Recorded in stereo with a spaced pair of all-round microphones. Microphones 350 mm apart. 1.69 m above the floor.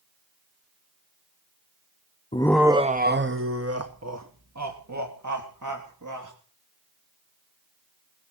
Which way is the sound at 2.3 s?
20° left (ahead or behind).